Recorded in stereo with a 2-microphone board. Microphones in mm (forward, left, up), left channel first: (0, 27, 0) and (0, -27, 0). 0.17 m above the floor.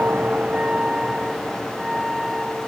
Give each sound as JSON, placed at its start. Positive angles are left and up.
{"t": 0.0, "sound": "a vehicle", "side_deg": -30}